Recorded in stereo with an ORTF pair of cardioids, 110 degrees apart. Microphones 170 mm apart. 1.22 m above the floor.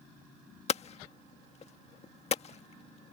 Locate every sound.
0.7 s hammering: 40° left